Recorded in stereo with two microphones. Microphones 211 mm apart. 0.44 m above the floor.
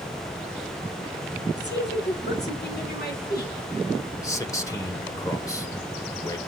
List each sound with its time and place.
1.6 s a woman speaking: 55° left (ahead or behind), 5 m; by 3.5 s 45° left (ahead or behind), 4.5 m
4.2 s a man speaking: 15° left (ahead or behind), 1.4 m